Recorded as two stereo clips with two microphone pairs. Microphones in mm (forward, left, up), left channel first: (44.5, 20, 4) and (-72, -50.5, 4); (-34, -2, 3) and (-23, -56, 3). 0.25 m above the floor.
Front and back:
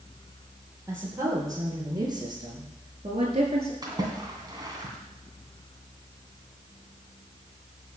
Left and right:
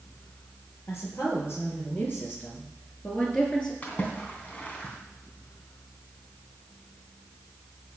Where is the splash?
160° left, 2.5 m.